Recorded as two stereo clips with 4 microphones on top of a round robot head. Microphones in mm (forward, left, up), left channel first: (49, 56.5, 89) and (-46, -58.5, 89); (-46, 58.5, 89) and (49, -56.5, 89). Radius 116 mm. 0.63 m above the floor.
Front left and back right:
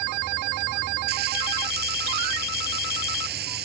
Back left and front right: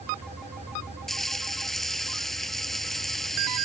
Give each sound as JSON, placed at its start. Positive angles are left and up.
{"t": 1.1, "sound": "frying", "azimuth_deg": -145}